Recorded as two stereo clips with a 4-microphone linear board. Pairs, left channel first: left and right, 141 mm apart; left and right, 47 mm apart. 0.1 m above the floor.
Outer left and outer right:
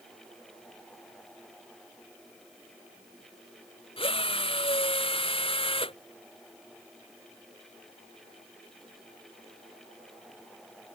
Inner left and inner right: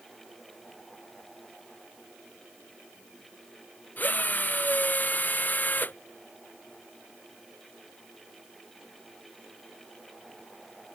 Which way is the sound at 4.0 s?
40° left (ahead or behind).